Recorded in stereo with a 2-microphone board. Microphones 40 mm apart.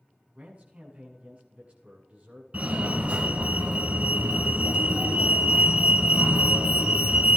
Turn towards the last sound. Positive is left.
turn(degrees=-40)  # may be behind; listen again after turning